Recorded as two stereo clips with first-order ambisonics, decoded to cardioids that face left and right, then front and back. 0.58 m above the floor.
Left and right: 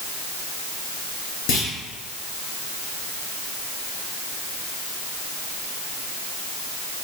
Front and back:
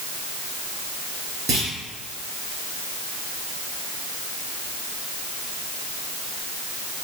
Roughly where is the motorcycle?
I don't hear a motorcycle.